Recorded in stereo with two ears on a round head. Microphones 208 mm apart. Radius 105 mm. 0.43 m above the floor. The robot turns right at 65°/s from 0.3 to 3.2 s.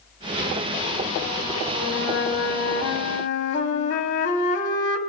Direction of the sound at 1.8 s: 35° left.